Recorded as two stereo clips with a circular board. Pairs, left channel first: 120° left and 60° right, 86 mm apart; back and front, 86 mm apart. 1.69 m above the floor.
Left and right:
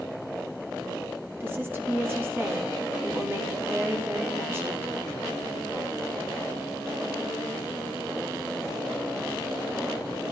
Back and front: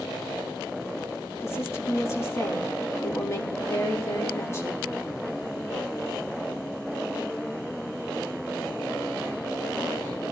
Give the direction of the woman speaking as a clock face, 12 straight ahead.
4 o'clock.